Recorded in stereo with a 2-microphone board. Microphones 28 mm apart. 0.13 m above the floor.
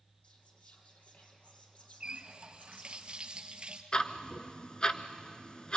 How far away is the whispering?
About 4.5 m.